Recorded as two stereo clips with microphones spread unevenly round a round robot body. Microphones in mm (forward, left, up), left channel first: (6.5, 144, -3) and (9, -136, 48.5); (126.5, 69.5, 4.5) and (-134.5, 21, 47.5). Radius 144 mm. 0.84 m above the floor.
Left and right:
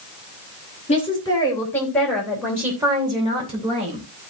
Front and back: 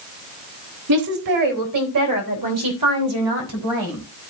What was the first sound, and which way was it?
A woman speaking, 160° left.